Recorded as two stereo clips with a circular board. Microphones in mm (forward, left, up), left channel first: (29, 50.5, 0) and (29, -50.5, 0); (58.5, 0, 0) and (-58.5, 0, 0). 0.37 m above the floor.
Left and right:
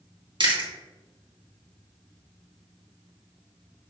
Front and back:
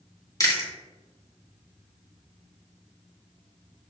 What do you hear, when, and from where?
0.4 s chewing: 60° right, 2.5 m